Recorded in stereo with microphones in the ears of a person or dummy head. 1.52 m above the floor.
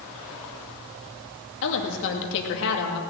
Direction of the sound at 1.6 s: 70° left (ahead or behind).